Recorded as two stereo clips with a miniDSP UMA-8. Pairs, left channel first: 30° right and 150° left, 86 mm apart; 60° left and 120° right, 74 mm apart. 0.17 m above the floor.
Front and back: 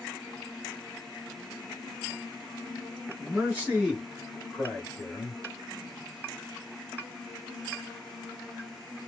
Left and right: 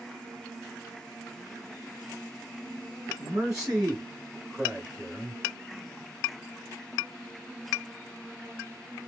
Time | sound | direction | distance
3.2 | a man speaking | 170° right | 1.2 m